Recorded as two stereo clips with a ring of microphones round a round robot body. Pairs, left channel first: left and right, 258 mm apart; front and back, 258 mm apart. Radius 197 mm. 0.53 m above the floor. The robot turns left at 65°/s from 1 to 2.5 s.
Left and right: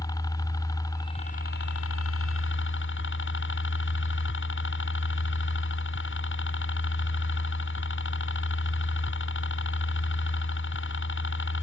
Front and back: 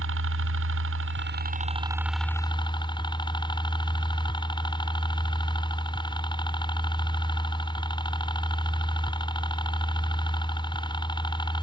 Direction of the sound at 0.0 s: 165° left.